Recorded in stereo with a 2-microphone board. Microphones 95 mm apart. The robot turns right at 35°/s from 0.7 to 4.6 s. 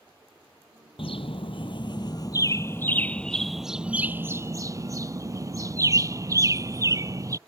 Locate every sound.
1.0 s a bird: 90° left; by 7.4 s 145° right